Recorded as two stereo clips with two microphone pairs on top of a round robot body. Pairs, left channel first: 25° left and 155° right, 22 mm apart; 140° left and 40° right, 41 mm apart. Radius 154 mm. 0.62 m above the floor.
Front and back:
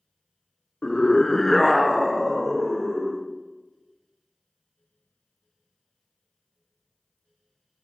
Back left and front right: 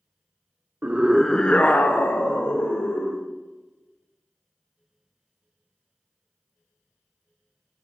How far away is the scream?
About 0.8 m.